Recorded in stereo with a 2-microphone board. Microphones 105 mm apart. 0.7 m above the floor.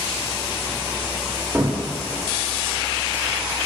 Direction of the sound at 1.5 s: 25° right (ahead or behind).